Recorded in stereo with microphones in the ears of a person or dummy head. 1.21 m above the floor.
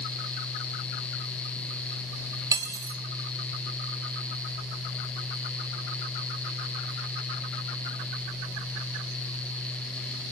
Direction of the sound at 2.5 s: 25° right (ahead or behind).